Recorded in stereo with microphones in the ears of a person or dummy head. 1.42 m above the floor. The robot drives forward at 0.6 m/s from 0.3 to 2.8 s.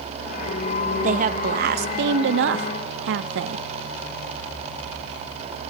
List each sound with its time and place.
1.0 s a woman speaking: 45° right (ahead or behind), 1.3 m; by 3.6 s 70° right (ahead or behind), 0.9 m